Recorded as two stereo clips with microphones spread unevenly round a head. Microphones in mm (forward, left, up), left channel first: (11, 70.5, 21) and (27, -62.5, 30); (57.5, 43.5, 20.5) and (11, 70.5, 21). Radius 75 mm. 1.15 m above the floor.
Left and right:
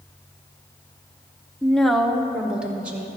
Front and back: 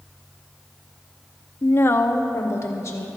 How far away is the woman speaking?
About 0.6 m.